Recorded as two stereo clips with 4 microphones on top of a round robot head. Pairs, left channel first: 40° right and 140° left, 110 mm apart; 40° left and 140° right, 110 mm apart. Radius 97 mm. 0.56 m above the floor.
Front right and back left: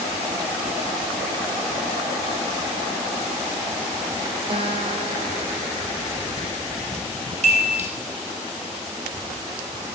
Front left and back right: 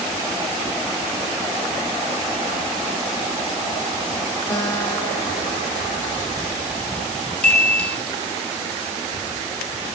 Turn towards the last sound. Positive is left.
turn(degrees=120)